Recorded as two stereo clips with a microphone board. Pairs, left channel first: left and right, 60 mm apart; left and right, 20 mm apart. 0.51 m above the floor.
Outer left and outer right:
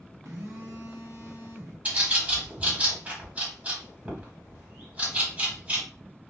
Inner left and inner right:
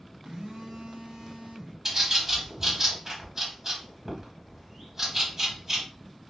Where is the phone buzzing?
75° right (ahead or behind), 1.4 m.